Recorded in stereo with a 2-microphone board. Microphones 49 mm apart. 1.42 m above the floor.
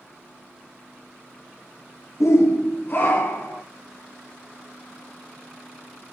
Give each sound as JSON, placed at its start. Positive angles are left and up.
{"t": 2.2, "sound": "a shout", "side_deg": 75, "distance_m": 0.6}